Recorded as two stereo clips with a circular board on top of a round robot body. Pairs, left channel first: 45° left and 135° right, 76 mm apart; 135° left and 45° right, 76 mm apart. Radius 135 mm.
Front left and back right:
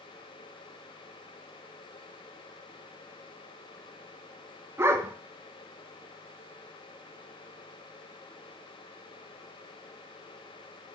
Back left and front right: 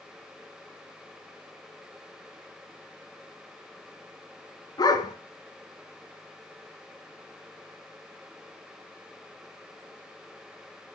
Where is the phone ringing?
No phone ringing in this recording.